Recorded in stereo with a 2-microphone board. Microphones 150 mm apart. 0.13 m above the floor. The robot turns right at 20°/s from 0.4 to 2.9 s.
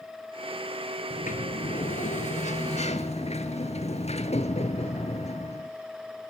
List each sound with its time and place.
1.1 s a sliding door: 85° left, 1.5 m; by 5.7 s 120° left, 1.5 m